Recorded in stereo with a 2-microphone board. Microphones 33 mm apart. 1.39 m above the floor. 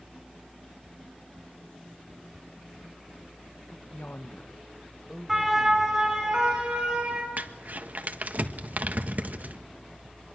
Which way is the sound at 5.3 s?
5° right (ahead or behind).